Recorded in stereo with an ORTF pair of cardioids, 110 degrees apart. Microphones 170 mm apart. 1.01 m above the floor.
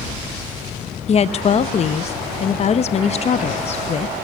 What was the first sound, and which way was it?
A woman speaking, 40° left.